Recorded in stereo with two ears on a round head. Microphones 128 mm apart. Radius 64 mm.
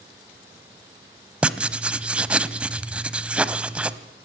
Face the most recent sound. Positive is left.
turn(degrees=-10)  # may be behind; listen again after turning